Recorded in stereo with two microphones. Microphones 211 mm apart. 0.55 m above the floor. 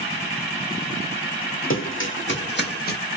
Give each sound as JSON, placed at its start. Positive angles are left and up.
{"t": 1.7, "sound": "running footsteps", "side_deg": 65, "distance_m": 1.5}